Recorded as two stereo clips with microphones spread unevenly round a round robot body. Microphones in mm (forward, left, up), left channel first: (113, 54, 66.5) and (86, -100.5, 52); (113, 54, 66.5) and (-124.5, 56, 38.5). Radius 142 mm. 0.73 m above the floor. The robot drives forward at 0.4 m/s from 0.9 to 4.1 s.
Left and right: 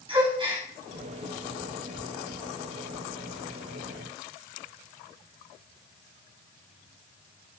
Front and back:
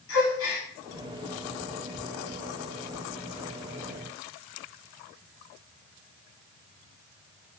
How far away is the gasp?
About 9.5 m.